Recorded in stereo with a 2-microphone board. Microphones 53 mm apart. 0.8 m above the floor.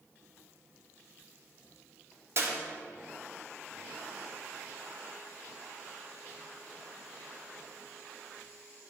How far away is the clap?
About 1.6 m.